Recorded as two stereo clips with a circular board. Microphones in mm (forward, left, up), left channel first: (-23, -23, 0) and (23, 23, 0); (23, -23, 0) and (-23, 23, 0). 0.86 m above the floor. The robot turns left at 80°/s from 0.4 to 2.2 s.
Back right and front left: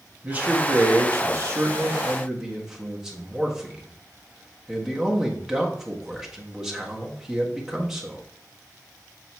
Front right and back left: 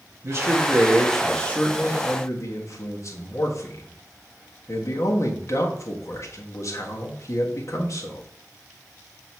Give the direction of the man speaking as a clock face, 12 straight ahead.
8 o'clock.